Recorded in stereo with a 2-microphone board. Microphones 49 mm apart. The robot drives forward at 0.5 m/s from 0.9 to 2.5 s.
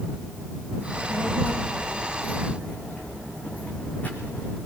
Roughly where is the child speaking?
Left.